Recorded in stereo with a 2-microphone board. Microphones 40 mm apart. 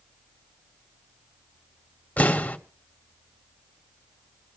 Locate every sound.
2.2 s an explosion: 45° left (ahead or behind), 2.5 m